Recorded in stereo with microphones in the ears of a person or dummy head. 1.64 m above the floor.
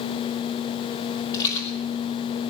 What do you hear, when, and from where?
1.3 s a rattle: 20° left (ahead or behind), 2.5 m